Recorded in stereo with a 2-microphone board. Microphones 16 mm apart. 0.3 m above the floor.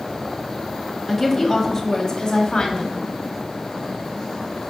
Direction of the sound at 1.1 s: 10° left (ahead or behind).